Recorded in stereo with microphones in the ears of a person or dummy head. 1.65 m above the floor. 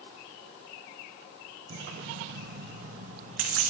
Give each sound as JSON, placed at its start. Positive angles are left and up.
{"t": 1.7, "sound": "keys jangling", "side_deg": -45, "distance_m": 0.7}